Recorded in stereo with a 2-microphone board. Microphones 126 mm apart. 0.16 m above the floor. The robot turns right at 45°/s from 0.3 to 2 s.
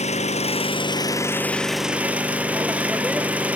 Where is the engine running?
115° left, 1.2 m; by 3.6 s 170° right, 1.2 m.